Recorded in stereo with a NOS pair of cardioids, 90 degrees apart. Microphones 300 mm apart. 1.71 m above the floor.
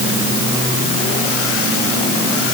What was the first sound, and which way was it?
Only background noise.